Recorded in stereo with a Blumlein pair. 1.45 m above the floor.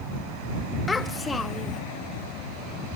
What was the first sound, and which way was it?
A child speaking, 10° left.